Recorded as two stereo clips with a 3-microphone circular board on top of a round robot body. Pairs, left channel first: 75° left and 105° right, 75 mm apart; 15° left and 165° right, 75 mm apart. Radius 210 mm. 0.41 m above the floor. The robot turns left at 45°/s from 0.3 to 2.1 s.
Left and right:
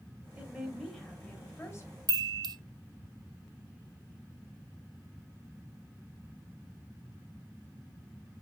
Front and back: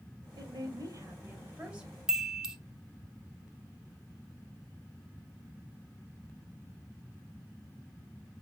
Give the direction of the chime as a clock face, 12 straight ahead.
3 o'clock.